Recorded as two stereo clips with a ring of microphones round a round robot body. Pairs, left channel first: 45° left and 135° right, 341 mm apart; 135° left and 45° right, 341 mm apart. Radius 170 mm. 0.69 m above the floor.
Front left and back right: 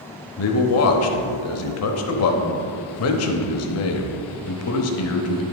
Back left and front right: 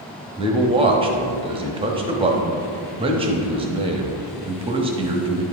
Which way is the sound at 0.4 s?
25° left.